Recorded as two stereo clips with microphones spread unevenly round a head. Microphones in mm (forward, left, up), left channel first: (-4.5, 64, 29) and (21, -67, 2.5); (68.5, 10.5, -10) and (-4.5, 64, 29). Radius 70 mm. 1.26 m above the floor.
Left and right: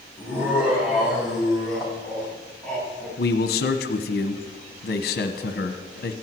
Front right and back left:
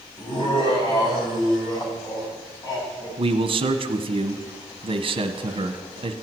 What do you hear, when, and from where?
0.2 s laughter: straight ahead, 5.5 m; by 3.1 s 15° left, 8.5 m
3.2 s a man speaking: 105° left, 1.2 m